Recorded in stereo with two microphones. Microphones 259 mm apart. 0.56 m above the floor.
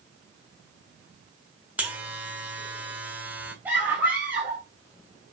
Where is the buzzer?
5° right (ahead or behind), 2.0 m.